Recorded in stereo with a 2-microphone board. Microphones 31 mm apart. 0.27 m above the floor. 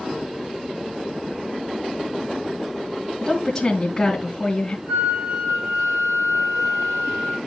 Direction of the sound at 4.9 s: 50° right (ahead or behind).